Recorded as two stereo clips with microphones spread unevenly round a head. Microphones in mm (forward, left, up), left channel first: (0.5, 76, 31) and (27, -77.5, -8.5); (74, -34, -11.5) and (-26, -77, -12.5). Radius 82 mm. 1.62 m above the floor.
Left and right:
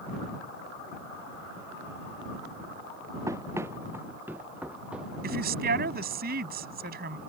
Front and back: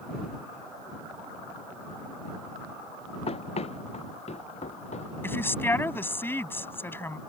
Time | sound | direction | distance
3.3 | running footsteps | 5° right | ?
5.2 | a woman speaking | 45° right | ?